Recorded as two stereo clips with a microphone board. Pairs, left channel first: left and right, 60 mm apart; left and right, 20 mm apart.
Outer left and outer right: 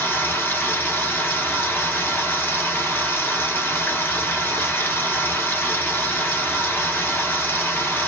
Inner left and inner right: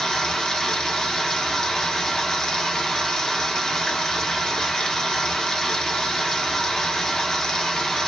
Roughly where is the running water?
Left.